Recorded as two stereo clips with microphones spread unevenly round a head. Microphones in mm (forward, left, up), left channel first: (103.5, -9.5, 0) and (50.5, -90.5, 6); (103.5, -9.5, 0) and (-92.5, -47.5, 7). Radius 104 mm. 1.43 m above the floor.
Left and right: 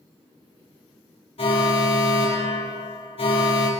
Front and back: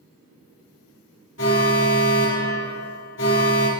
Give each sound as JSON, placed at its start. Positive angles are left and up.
{"t": 1.4, "sound": "an alarm", "azimuth_deg": 45, "distance_m": 4.0}